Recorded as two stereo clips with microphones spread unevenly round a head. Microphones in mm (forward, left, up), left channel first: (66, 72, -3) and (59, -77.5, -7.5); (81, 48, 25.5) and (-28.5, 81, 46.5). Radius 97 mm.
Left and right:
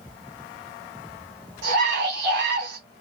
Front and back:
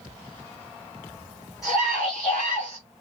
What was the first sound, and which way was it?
A scream, 110° right.